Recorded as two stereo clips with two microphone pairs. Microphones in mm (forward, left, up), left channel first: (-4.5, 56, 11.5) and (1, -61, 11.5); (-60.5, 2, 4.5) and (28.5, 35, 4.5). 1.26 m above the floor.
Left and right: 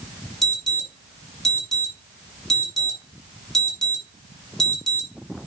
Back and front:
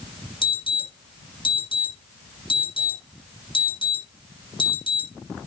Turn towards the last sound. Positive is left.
turn(degrees=180)